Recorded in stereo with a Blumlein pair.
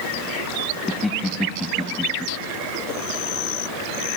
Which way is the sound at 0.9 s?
10° left.